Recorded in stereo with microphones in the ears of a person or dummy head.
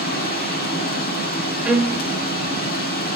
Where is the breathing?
No breathing in this recording.